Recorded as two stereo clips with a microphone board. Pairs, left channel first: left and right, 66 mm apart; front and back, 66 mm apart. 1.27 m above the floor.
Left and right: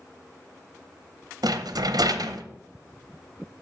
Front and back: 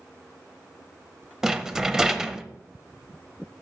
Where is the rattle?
100° right, 0.5 m.